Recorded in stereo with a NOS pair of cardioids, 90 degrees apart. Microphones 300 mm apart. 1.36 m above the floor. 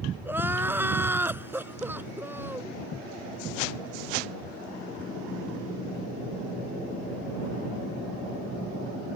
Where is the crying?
5° right.